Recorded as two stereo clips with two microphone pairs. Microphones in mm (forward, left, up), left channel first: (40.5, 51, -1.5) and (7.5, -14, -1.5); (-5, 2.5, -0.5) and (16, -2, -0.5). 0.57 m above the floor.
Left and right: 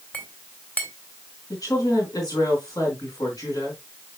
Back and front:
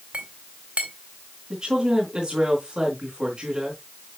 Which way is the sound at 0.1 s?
Straight ahead.